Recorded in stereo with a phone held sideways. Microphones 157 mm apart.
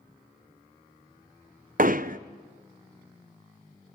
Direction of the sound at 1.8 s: 60° right (ahead or behind).